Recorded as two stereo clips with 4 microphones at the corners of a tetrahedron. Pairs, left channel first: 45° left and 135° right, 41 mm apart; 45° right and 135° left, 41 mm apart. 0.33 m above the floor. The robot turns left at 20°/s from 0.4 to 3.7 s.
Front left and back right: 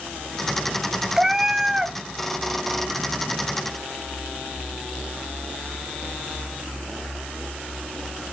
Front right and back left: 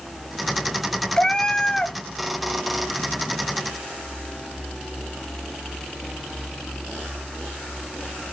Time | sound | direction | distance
1.2 | a cat meowing | 65° right | 0.6 m